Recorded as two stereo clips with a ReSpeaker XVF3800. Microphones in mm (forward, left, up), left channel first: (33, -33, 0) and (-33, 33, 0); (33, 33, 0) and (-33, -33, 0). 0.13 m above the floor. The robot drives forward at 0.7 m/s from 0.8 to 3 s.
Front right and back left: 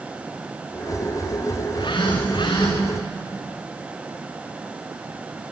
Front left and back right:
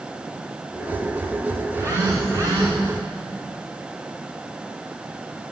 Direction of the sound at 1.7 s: 70° right.